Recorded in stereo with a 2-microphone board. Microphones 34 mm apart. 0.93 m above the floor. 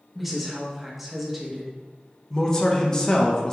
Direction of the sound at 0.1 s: Centre (ahead or behind).